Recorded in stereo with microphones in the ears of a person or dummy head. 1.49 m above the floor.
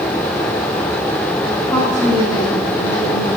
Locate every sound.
1.7 s a woman speaking: 10° left (ahead or behind), 2 m; by 3.3 s 40° left (ahead or behind), 2 m